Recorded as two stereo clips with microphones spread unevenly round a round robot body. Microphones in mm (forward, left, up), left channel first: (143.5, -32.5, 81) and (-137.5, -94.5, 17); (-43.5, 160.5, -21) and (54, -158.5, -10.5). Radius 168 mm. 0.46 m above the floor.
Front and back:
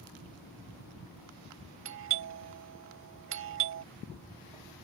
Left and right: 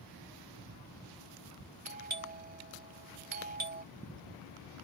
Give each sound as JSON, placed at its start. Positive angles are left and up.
{"t": 1.9, "sound": "a doorbell", "azimuth_deg": -135}